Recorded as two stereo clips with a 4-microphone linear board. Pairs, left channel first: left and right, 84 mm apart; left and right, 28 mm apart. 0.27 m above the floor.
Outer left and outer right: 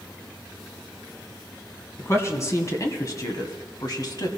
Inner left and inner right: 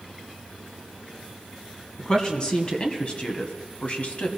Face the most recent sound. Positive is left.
turn(degrees=50)  # may be behind; listen again after turning